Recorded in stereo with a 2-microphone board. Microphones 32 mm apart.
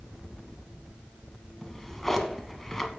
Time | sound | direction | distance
1.6 | a drawer | 10° left (ahead or behind) | 0.7 m